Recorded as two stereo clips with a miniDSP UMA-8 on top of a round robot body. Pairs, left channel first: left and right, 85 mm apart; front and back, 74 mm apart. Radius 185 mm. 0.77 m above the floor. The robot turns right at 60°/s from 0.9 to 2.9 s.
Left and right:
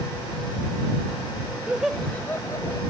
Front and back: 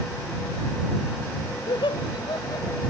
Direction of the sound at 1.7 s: 15° right.